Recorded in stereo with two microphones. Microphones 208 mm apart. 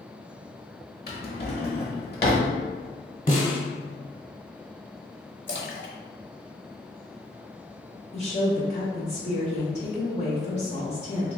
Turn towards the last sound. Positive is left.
turn(degrees=30)  # may be behind; listen again after turning